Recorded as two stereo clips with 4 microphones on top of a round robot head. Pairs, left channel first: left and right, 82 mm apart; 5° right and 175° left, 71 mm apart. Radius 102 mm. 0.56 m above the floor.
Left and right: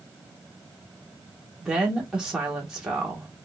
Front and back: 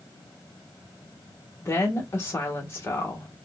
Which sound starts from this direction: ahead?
A woman speaking, at 1.6 s.